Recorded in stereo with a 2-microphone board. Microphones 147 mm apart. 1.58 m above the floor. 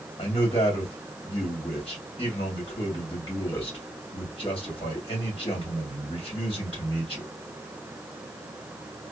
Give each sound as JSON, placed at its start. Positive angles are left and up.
{"t": 0.2, "sound": "a man speaking", "side_deg": 40, "distance_m": 2.0}